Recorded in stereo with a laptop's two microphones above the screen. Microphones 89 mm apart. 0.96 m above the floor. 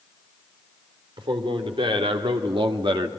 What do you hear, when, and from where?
1.2 s a man speaking: 75° right (ahead or behind), 2.5 m; by 3.1 s 60° right (ahead or behind), 1.5 m